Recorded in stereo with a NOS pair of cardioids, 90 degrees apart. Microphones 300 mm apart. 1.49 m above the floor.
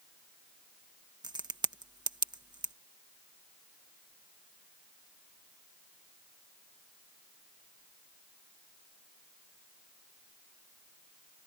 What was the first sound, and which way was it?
A crack, 15° right.